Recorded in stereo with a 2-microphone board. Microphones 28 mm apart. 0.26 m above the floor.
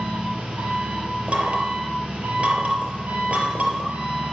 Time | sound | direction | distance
0.0 | an engine running | 45° right (ahead or behind) | 4 m
1.3 | knocking | 55° right (ahead or behind) | 3.5 m